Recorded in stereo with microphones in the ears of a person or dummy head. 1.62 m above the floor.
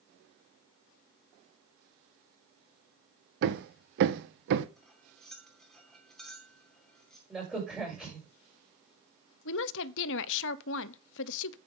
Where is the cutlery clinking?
Centre (ahead or behind), 2.5 m.